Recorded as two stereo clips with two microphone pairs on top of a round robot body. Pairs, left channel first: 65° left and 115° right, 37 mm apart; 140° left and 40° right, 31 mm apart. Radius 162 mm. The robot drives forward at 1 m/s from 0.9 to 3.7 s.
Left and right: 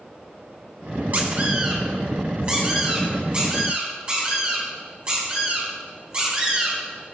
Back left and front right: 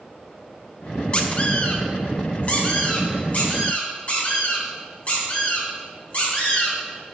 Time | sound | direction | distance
1.1 | a squeak | 160° right | 0.8 m